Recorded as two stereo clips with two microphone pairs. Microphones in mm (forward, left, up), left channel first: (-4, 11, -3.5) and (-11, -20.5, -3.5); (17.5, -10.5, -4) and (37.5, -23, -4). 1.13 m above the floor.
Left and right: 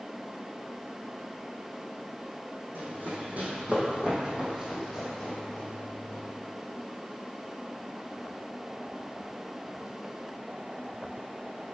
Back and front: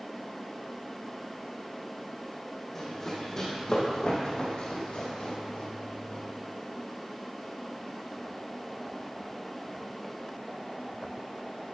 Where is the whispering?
I don't hear whispering.